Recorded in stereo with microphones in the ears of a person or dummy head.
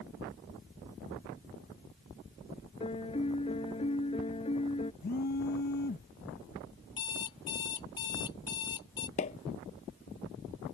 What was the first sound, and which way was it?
A piano, 25° left (ahead or behind).